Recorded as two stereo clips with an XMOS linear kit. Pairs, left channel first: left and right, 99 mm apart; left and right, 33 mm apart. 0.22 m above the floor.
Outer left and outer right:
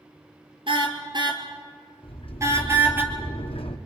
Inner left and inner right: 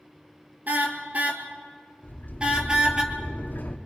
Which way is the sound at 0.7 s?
55° right (ahead or behind).